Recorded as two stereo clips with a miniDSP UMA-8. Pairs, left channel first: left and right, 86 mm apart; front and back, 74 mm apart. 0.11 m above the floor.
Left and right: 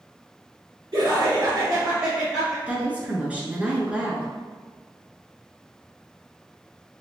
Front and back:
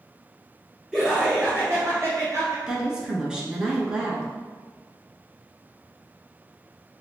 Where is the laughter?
95° right, 1.6 m; by 2.6 s 175° right, 1.5 m.